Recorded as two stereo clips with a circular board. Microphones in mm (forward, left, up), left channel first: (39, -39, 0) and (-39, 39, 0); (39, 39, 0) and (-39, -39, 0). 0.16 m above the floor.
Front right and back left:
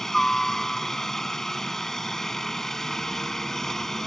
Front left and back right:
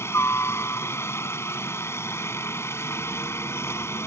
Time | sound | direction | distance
0.0 | a helicopter | 35° left | ?